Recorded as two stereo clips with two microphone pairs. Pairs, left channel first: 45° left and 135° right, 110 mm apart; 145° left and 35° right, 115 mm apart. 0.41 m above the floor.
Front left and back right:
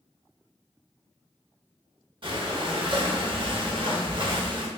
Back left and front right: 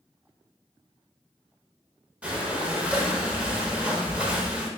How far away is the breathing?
About 0.6 m.